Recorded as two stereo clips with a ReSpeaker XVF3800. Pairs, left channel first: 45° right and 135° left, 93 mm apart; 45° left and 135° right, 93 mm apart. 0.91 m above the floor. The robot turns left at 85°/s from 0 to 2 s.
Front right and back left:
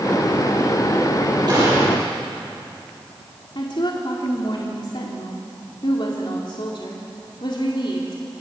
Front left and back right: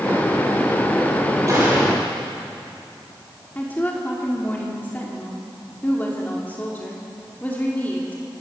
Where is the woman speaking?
25° right, 2.5 m.